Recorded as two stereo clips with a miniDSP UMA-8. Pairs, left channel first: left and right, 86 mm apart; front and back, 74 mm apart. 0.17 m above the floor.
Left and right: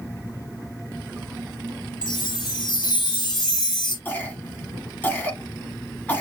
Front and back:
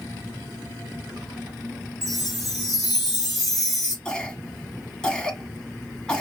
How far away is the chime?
About 3 m.